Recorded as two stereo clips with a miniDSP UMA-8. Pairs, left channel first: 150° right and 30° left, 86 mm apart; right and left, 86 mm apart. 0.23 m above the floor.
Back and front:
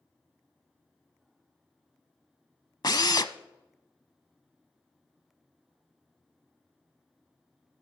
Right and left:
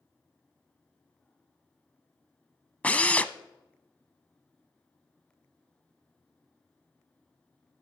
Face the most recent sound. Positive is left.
turn(degrees=-160)